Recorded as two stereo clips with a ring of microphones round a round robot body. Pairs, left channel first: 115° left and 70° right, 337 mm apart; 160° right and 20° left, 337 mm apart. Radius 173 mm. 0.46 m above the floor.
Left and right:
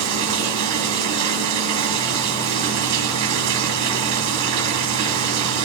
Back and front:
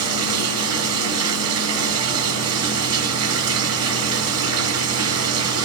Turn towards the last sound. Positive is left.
turn(degrees=-25)